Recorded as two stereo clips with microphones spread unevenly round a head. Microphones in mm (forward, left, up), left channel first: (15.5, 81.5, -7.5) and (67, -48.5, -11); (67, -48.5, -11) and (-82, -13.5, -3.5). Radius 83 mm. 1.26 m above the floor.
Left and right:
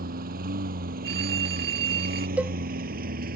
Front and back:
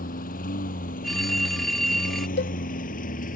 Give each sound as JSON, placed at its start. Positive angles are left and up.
{"t": 0.0, "sound": "a lawn mower", "azimuth_deg": -50}
{"t": 1.0, "sound": "a phone ringing", "azimuth_deg": -105}
{"t": 2.4, "sound": "a cowbell", "azimuth_deg": 10}